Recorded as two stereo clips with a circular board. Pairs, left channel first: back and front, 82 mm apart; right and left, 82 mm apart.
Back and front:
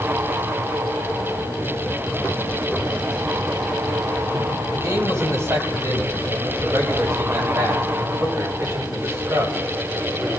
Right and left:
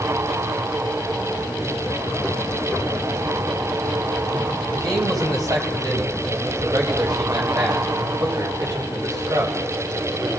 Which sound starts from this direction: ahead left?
A man speaking, at 4.7 s.